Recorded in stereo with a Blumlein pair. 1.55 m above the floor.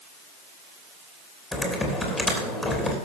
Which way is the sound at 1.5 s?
5° left.